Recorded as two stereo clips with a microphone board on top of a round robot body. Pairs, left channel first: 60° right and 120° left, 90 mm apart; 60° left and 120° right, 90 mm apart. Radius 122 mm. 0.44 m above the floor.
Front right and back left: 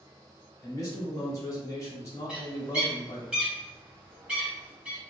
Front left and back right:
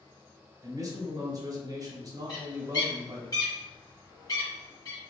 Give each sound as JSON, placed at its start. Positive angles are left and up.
{"t": 0.6, "sound": "a man speaking", "azimuth_deg": -95, "distance_m": 1.1}
{"t": 2.3, "sound": "a bird", "azimuth_deg": 45, "distance_m": 1.6}